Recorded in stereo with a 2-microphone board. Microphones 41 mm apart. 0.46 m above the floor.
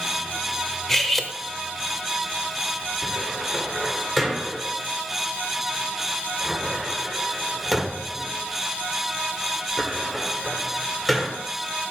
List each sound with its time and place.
0.9 s cutlery clinking: 10° left (ahead or behind), 0.9 m
3.0 s a cupboard door: 5° left (ahead or behind), 1.8 m